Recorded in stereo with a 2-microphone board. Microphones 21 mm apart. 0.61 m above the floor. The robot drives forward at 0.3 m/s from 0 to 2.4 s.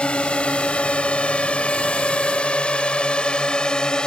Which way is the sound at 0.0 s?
60° left (ahead or behind).